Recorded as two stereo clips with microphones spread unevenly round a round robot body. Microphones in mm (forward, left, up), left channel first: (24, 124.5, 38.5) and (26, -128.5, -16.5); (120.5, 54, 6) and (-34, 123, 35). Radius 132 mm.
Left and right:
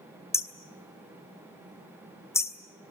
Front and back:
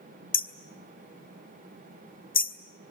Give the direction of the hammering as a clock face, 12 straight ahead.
12 o'clock.